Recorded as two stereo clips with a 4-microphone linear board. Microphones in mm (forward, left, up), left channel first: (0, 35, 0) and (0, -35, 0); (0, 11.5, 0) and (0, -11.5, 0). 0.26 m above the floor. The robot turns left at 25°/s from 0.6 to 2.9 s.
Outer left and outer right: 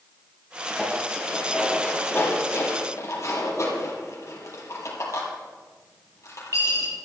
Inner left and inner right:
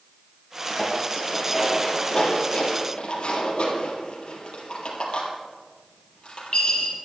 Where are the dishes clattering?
Centre (ahead or behind), 4.5 m; by 7.0 s 55° left (ahead or behind), 4.5 m.